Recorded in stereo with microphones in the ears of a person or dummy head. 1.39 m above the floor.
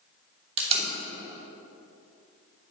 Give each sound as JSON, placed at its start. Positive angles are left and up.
{"t": 0.6, "sound": "tape being pulled", "side_deg": -40, "distance_m": 2.5}